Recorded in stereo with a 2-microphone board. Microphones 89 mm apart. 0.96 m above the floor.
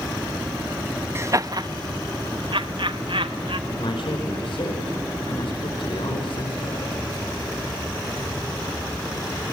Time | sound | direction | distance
1.1 | laughter | 30° right (ahead or behind) | 0.5 m
3.7 | a man speaking | 75° left (ahead or behind) | 5 m